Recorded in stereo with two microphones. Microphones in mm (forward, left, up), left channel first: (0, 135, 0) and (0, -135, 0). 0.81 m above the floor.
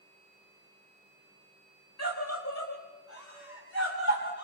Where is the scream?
70° left (ahead or behind), 3 m; by 4.5 s 45° left (ahead or behind), 5.5 m.